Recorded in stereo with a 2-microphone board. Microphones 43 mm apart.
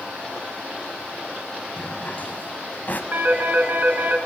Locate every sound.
1.8 s a drawer: 45° left (ahead or behind), 1.6 m
3.1 s a phone ringing: 50° right (ahead or behind), 3 m